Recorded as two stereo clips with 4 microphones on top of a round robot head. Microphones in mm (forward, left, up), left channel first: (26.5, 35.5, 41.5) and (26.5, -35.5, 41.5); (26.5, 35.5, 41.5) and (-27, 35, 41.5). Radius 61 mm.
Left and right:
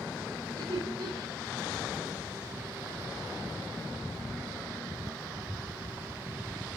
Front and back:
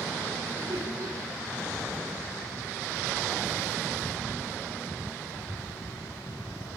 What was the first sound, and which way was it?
Laughter, 135° right.